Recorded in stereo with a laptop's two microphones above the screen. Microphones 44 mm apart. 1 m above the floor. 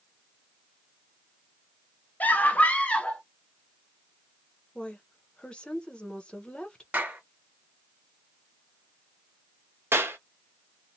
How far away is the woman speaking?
About 0.6 m.